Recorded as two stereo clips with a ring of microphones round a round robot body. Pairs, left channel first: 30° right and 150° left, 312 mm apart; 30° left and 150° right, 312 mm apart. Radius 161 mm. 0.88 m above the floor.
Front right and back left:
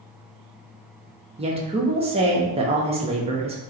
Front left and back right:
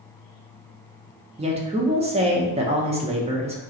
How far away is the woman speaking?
About 0.7 m.